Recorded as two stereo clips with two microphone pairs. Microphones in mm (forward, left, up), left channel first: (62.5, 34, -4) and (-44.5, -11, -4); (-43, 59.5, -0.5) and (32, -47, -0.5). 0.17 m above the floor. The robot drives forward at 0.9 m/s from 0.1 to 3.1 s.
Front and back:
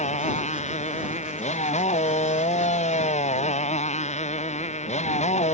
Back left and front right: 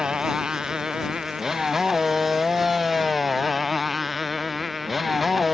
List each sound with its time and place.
0.0 s a motorcycle: 30° left; by 5.5 s 35° left